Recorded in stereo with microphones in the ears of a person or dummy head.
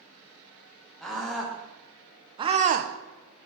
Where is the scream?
Centre (ahead or behind), 1.6 m; by 2.9 s 55° right (ahead or behind), 0.5 m.